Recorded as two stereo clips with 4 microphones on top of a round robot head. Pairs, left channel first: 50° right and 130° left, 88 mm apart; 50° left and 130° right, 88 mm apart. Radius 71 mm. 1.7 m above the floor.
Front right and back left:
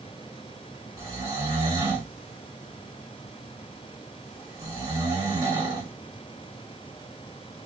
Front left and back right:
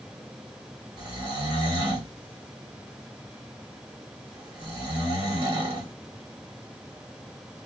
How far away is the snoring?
About 1.4 m.